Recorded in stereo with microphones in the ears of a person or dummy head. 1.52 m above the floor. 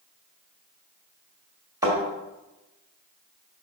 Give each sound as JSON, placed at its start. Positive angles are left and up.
{"t": 1.8, "sound": "a thud", "side_deg": -15, "distance_m": 1.8}